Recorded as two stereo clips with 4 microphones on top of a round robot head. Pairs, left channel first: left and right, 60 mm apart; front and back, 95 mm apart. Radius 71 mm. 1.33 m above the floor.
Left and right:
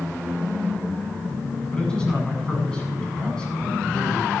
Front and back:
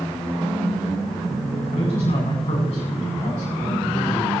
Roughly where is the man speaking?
Ahead.